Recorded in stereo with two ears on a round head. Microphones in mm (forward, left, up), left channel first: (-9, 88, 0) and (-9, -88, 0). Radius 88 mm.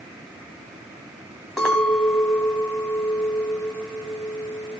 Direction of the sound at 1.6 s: 5° left (ahead or behind).